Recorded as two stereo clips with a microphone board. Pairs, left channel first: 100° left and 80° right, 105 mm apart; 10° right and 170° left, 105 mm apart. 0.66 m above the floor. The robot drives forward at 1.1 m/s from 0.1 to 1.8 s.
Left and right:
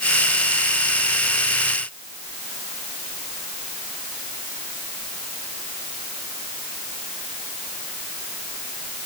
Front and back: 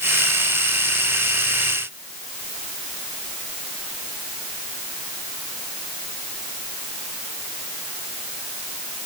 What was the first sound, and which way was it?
Only background noise.